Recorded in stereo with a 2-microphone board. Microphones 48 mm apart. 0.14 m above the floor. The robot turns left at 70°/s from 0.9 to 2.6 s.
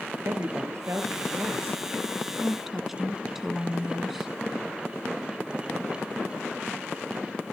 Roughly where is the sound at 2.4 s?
Centre.